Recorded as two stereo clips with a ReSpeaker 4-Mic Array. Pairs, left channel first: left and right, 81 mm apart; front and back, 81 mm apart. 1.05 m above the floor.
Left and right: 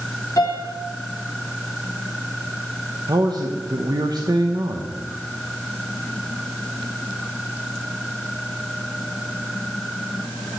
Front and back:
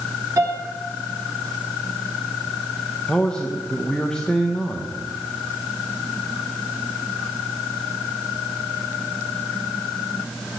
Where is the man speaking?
75° right, 0.9 m.